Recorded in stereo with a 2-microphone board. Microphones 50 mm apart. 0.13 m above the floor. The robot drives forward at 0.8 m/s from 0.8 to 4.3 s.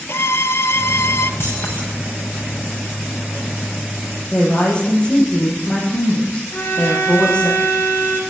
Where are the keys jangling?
55° left (ahead or behind), 7 m.